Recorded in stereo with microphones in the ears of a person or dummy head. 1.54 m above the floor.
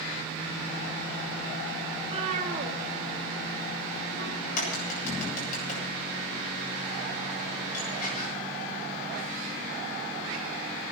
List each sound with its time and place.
2.0 s a cat meowing: 35° right (ahead or behind), 1.7 m; by 4.3 s 65° right (ahead or behind), 2 m
4.4 s a crack: 45° left (ahead or behind), 7 m